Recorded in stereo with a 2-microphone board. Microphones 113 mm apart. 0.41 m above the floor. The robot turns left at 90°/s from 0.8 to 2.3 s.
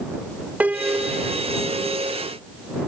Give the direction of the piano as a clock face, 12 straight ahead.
5 o'clock.